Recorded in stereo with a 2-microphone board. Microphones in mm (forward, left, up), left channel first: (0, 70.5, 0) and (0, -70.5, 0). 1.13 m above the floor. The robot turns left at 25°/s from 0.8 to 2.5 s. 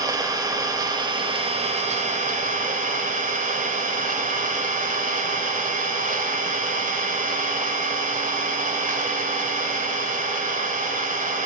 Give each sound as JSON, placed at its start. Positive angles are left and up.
{"t": 0.0, "sound": "an engine running", "azimuth_deg": -25, "distance_m": 2.5}